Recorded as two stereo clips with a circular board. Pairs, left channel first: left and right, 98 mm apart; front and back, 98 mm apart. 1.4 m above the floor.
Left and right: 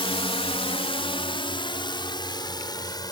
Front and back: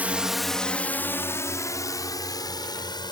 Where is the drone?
105° left; by 3.1 s 45° left.